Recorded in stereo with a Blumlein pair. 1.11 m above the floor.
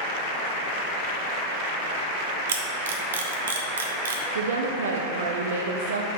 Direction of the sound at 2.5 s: 65° right.